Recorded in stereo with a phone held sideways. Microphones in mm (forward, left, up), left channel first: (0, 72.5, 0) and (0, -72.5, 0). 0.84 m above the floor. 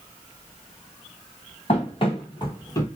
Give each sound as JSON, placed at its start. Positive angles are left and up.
{"t": 1.7, "sound": "running footsteps", "side_deg": 45, "distance_m": 1.4}